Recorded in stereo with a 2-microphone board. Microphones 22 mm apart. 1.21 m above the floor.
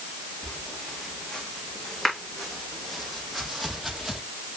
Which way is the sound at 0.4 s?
25° left (ahead or behind).